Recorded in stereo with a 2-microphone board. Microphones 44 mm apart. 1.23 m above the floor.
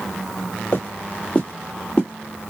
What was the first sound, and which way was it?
Footsteps, 35° left (ahead or behind).